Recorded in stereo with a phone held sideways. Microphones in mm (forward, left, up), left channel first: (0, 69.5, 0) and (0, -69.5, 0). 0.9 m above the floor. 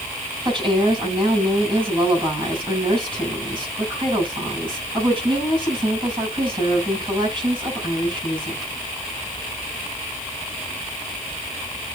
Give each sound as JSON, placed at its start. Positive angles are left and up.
{"t": 0.5, "sound": "a woman speaking", "side_deg": -35, "distance_m": 6.0}